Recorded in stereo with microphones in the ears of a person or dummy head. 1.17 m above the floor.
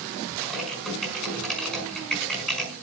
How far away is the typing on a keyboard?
About 5 m.